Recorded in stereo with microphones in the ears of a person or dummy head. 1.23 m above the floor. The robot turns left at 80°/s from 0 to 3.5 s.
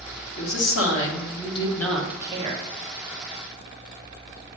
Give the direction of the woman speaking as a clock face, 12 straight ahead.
8 o'clock.